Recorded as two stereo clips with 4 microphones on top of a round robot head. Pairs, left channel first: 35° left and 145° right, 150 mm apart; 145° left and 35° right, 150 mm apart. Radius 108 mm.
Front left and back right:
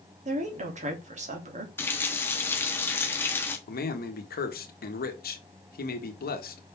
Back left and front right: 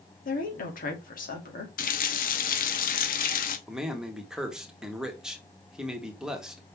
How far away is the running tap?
About 0.9 m.